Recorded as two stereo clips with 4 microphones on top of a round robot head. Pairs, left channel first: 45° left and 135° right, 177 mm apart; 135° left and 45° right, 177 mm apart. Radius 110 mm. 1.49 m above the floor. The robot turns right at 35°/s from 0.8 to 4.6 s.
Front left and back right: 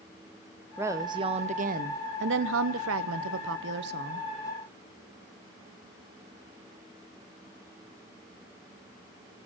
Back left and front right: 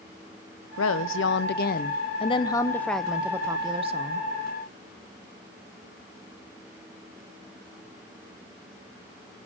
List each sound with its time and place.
0.8 s a woman speaking: 145° left, 0.5 m; by 4.3 s 90° right, 0.5 m